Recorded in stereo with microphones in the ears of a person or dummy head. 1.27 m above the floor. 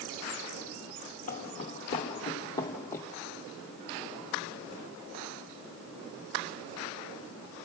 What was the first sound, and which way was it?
Footsteps, 35° left (ahead or behind).